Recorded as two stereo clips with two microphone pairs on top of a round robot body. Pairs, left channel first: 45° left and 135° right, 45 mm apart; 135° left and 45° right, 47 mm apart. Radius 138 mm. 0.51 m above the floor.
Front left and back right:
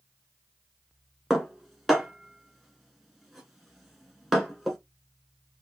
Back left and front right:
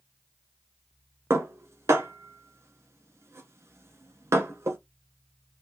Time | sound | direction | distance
1.3 | dishes clattering | 50° right | 1.5 m